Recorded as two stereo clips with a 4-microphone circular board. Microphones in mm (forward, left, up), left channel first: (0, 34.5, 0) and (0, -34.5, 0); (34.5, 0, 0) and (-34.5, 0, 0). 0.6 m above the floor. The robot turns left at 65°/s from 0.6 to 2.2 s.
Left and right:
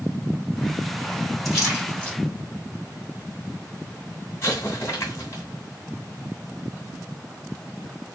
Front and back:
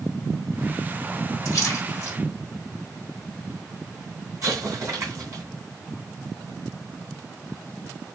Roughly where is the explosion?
Behind left.